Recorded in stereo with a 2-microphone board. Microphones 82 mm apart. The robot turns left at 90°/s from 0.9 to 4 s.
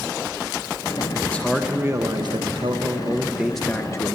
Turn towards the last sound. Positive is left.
turn(degrees=140)